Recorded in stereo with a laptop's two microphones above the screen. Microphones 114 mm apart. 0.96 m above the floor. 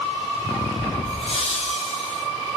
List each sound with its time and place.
1.1 s laughter: 65° left (ahead or behind), 8.5 m; by 2.2 s 70° left (ahead or behind), 8 m